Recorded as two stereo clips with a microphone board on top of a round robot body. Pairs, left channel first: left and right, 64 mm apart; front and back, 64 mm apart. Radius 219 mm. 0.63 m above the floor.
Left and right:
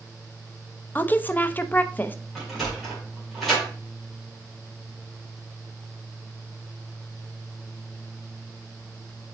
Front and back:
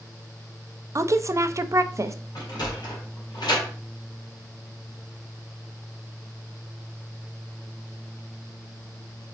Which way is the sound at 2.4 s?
Straight ahead.